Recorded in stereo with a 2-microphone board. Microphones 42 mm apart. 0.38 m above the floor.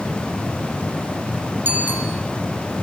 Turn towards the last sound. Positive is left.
turn(degrees=-50)  # may be behind; listen again after turning